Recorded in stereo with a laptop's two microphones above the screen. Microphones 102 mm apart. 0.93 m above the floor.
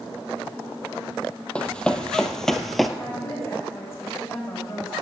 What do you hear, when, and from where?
1.6 s running footsteps: 10° left (ahead or behind), 2 m; by 2.9 s centre (ahead or behind), 1.4 m
3.0 s a woman speaking: 30° left (ahead or behind), 5.5 m